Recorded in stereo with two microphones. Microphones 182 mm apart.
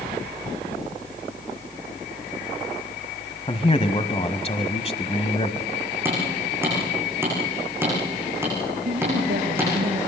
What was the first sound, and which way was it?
A man speaking, 35° left (ahead or behind).